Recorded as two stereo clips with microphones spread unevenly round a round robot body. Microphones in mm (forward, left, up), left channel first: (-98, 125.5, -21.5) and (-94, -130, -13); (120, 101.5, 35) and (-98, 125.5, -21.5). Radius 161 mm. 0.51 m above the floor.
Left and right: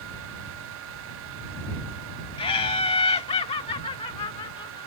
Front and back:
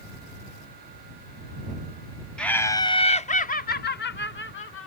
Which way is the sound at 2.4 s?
110° left.